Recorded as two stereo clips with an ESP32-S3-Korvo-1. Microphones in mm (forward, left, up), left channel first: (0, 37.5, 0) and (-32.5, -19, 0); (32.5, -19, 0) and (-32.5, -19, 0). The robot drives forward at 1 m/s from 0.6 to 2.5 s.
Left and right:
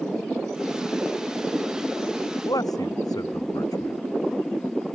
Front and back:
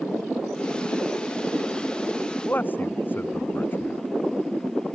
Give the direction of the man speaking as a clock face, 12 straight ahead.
10 o'clock.